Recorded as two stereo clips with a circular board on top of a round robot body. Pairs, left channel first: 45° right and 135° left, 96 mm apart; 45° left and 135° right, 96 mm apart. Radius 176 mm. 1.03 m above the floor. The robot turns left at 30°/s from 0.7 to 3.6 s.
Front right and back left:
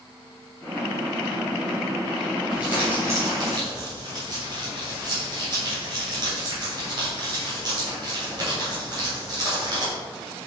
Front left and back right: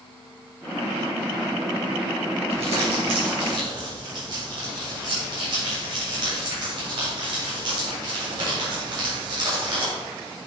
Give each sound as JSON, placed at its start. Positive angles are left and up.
{"t": 2.5, "sound": "crumpling", "azimuth_deg": -145, "distance_m": 3.0}